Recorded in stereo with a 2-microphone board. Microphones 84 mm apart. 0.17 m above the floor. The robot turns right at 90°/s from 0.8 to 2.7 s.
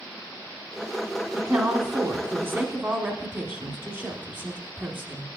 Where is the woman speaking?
170° right, 1.1 m; by 5.3 s 45° right, 1.1 m.